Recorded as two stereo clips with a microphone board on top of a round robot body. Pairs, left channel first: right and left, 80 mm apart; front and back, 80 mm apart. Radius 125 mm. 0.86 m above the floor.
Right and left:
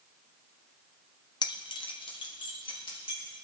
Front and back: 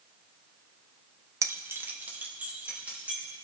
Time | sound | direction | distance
1.4 | keys jangling | 125° right | 0.5 m